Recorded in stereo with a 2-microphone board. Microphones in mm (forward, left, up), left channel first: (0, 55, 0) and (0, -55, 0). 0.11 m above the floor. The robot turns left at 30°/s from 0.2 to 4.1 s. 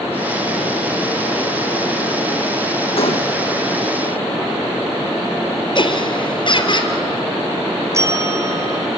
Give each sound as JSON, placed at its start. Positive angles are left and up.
{"t": 3.0, "sound": "a gunshot", "side_deg": 60, "distance_m": 3.5}
{"t": 5.8, "sound": "laughter", "side_deg": 45, "distance_m": 3.0}
{"t": 7.9, "sound": "a bell", "side_deg": -25, "distance_m": 1.6}